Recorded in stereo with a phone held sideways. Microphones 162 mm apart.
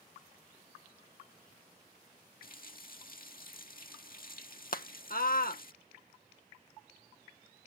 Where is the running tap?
65° left (ahead or behind).